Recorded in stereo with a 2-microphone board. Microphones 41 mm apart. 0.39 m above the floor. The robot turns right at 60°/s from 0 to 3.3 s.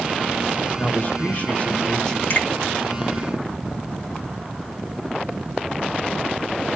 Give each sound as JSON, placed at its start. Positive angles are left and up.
{"t": 0.8, "sound": "a man speaking", "azimuth_deg": 75, "distance_m": 1.0}
{"t": 2.3, "sound": "a finger snap", "side_deg": 50, "distance_m": 4.0}